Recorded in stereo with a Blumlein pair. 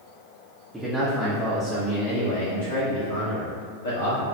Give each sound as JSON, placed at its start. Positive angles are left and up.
{"t": 0.7, "sound": "a man speaking", "azimuth_deg": -5, "distance_m": 0.7}